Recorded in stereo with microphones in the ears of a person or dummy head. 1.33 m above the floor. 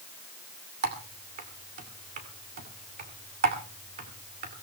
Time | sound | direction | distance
0.8 | typing on a keyboard | 45° right (ahead or behind) | 2.5 m